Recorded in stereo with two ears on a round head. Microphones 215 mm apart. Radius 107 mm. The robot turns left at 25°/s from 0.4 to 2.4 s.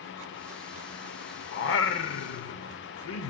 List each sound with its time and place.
1.5 s singing: 50° left (ahead or behind), 0.8 m; by 3.3 s 60° left (ahead or behind), 0.8 m